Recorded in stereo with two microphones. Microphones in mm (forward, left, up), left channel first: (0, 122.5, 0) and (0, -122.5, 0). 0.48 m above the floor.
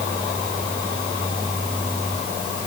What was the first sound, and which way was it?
Only background noise.